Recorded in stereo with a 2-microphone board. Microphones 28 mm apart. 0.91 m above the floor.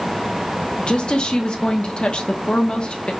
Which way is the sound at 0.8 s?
35° left (ahead or behind).